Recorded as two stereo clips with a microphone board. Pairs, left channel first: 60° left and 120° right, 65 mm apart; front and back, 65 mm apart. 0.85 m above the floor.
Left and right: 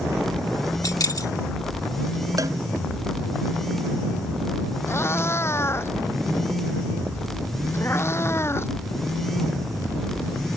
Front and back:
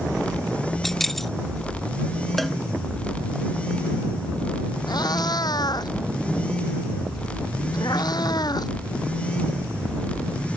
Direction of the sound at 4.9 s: 10° left.